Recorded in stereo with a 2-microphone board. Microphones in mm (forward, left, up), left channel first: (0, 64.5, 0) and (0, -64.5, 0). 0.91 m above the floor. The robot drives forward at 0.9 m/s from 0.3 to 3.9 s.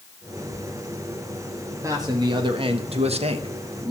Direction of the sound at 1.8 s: 25° right (ahead or behind).